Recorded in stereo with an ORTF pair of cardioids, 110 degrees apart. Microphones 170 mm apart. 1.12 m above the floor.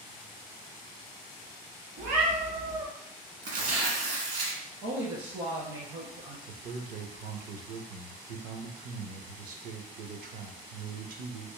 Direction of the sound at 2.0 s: 65° right.